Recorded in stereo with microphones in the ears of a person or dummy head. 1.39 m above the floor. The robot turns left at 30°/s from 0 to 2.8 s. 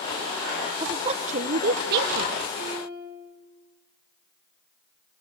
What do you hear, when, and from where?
0.8 s a woman speaking: 25° right, 1.0 m; by 2.4 s 75° right, 1.0 m
2.6 s a piano: 45° left (ahead or behind), 5.5 m; by 3.2 s 55° left (ahead or behind), 5.5 m